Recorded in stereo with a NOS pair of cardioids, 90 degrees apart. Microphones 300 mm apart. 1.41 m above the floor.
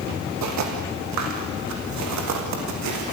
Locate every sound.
0.4 s footsteps: 70° right, 5.5 m